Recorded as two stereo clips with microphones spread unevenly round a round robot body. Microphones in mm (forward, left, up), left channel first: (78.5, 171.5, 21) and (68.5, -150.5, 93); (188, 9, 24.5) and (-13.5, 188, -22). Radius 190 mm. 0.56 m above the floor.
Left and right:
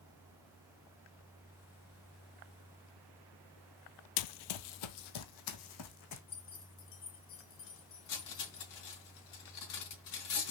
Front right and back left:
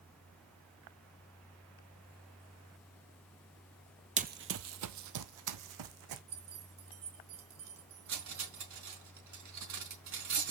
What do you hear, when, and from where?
4.2 s running footsteps: 70° left, 0.8 m; by 6.2 s 140° left, 1.9 m
6.3 s keys jangling: 145° left, 4 m
8.1 s cutlery clinking: 125° left, 4 m